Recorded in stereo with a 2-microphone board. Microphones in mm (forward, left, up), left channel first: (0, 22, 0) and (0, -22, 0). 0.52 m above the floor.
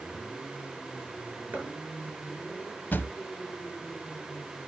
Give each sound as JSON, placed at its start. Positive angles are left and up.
{"t": 1.5, "sound": "chopping", "side_deg": -35, "distance_m": 8.0}
{"t": 2.9, "sound": "a drawer", "side_deg": 50, "distance_m": 0.8}